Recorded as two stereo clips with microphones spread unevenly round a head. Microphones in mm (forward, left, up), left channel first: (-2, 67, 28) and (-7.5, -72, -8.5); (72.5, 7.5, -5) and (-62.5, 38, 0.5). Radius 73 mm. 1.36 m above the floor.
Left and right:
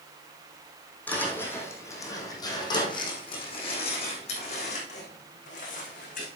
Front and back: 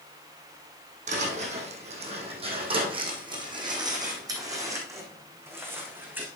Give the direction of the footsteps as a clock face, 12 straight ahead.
7 o'clock.